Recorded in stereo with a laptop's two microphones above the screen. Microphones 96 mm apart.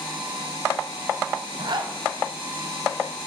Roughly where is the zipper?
Right.